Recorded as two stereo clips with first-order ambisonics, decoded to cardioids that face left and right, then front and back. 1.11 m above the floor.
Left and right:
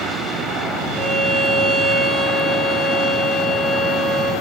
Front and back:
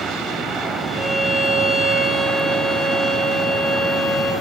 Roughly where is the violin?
Ahead.